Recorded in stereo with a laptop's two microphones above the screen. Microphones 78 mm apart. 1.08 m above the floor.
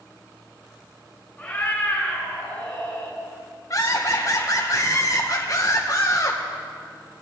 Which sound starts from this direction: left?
Laughter, at 3.7 s.